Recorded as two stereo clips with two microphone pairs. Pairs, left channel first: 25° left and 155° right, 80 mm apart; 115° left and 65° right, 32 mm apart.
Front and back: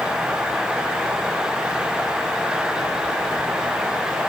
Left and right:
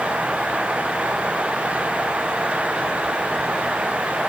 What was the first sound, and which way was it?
Only background noise.